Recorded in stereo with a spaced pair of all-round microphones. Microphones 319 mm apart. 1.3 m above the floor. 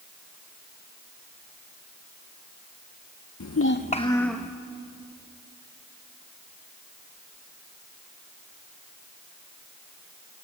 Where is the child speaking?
60° left (ahead or behind), 0.7 m; by 4.5 s centre (ahead or behind), 1.3 m.